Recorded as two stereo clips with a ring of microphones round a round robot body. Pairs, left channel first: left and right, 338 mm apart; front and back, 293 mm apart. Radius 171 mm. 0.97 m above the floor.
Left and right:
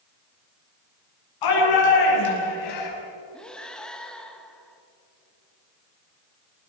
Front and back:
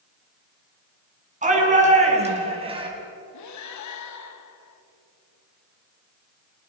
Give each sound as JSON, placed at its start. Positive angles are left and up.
{"t": 1.4, "sound": "a shout", "azimuth_deg": 115, "distance_m": 7.5}
{"t": 3.3, "sound": "breathing", "azimuth_deg": 5, "distance_m": 1.5}